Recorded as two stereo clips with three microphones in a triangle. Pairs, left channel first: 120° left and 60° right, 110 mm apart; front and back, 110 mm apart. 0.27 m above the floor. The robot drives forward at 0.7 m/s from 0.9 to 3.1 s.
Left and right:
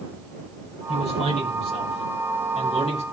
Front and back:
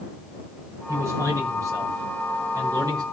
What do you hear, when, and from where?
0.9 s a man speaking: 115° left, 6.5 m; by 3.0 s 130° left, 7 m